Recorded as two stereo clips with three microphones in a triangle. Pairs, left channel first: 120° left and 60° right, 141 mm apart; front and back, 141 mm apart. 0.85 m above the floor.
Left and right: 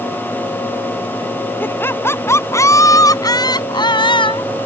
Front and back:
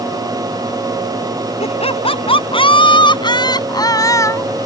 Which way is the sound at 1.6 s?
45° left.